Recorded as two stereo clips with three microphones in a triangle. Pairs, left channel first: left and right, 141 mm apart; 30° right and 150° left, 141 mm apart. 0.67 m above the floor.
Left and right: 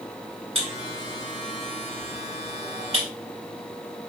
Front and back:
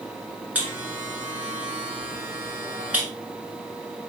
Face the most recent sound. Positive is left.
turn(degrees=-130)